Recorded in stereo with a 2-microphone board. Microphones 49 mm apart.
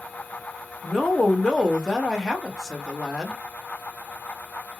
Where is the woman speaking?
5° left (ahead or behind), 0.9 m.